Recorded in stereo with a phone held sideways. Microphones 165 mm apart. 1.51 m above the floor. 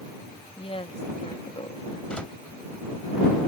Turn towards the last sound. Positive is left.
turn(degrees=5)  # may be behind; listen again after turning